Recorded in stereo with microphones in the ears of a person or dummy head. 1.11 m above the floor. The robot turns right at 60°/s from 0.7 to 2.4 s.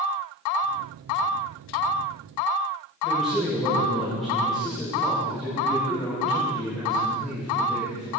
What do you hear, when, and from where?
3.0 s a man speaking: centre (ahead or behind), 5.5 m